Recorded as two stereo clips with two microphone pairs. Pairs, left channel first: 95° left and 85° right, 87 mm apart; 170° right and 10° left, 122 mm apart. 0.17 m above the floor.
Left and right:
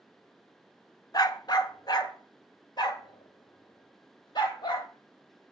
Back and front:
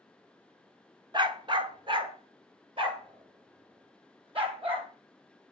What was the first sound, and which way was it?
A dog barking, 55° left.